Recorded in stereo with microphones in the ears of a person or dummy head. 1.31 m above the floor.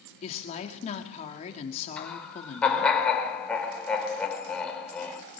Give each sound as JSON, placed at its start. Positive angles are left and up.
{"t": 0.2, "sound": "a woman speaking", "side_deg": 40, "distance_m": 2.5}
{"t": 2.0, "sound": "laughter", "side_deg": 5, "distance_m": 4.0}